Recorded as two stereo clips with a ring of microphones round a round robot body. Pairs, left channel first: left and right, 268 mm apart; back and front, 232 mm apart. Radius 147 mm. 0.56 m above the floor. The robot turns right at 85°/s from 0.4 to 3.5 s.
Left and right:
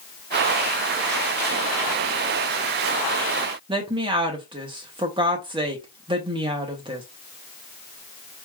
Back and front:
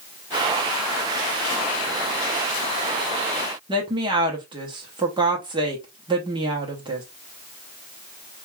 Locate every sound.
3.7 s a woman speaking: 40° right, 0.9 m